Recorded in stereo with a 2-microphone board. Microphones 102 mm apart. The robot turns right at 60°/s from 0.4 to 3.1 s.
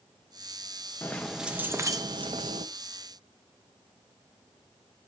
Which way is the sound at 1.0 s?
160° left.